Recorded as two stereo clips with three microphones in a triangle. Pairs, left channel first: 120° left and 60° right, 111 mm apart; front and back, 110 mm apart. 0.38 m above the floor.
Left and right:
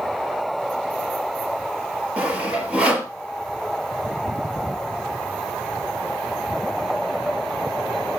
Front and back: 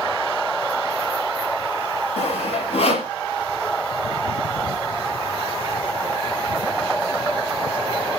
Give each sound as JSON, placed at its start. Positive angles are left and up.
{"t": 2.2, "sound": "sawing", "azimuth_deg": 20, "distance_m": 4.5}